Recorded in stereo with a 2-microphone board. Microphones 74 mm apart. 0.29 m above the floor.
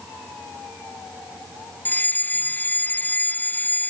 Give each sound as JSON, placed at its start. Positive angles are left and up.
{"t": 1.9, "sound": "a fire alarm", "side_deg": 25}